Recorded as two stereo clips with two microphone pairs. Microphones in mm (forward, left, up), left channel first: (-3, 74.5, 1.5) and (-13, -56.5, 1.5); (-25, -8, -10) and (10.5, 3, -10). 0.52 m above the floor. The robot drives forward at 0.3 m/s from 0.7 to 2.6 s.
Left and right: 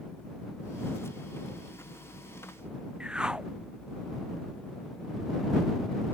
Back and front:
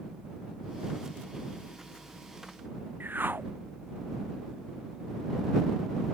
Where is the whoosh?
10° right.